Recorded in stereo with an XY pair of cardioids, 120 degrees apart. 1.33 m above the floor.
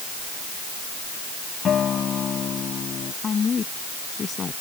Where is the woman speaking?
35° left.